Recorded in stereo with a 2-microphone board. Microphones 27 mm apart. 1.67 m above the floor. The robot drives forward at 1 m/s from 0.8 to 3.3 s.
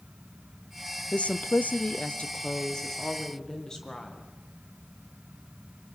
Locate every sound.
1.1 s a woman speaking: 50° left (ahead or behind), 0.7 m; by 4.3 s 20° left (ahead or behind), 1.8 m